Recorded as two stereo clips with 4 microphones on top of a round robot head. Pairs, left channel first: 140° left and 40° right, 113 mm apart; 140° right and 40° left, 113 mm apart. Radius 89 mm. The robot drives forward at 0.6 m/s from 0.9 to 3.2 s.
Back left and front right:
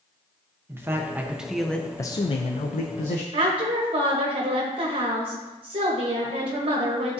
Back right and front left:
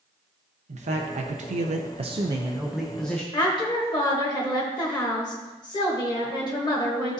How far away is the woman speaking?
About 1.0 m.